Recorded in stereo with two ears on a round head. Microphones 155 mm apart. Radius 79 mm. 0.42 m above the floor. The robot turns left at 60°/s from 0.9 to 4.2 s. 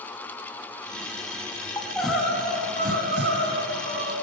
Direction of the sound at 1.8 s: 15° left.